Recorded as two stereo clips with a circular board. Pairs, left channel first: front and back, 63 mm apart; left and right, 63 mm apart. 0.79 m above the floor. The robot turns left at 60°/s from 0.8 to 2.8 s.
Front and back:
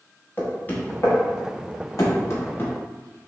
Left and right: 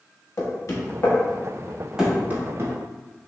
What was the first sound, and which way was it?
Knocking, 60° left.